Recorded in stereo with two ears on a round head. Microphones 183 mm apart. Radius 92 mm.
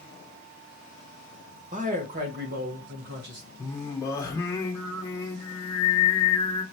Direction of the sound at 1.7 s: 40° right (ahead or behind).